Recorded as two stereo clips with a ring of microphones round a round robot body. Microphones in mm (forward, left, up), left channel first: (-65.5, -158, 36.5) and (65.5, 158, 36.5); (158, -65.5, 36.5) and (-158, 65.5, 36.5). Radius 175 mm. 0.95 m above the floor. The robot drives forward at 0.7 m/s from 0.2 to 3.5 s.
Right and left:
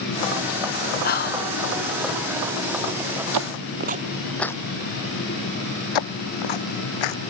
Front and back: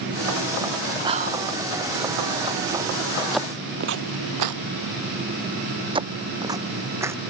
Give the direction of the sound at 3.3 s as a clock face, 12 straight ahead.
10 o'clock.